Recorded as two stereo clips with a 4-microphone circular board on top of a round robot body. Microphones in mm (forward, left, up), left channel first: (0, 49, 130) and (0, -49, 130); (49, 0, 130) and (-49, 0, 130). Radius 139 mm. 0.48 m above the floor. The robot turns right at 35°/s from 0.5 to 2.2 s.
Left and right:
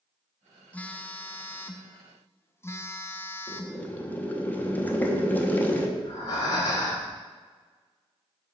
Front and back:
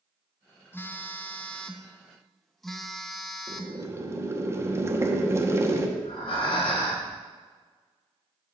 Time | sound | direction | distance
0.7 | a phone buzzing | 35° left | 0.8 m
3.5 | boiling | 145° left | 1.0 m
6.0 | breathing | 35° left | 1.1 m